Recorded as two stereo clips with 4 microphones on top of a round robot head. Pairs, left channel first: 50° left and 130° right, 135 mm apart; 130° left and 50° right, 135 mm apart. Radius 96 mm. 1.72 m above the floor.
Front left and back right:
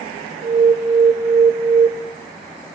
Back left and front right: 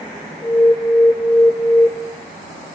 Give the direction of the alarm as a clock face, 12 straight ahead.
5 o'clock.